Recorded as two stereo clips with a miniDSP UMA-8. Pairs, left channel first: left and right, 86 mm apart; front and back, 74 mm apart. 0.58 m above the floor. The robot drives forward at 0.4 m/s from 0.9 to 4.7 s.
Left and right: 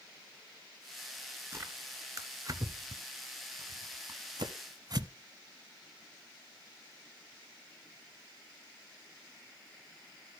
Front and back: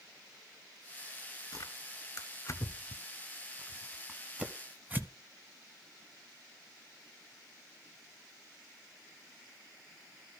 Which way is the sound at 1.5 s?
30° right.